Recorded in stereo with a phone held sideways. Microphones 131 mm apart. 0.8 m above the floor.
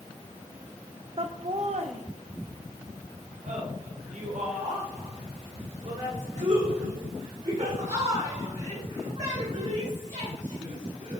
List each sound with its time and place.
1.2 s laughter: 45° right (ahead or behind), 0.5 m; by 11.2 s 65° right (ahead or behind), 6 m